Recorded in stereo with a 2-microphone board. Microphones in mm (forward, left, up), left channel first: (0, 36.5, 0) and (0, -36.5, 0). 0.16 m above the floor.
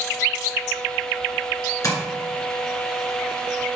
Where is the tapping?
50° left (ahead or behind), 2.0 m.